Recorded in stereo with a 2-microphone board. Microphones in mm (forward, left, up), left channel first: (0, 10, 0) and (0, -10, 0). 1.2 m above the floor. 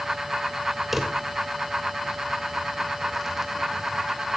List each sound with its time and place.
0.9 s a drawer: 10° right (ahead or behind), 2.5 m